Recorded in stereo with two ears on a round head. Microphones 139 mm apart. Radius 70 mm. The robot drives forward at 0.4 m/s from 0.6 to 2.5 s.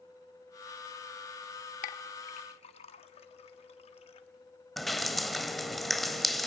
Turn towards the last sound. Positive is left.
turn(degrees=0)  # may be behind; listen again after turning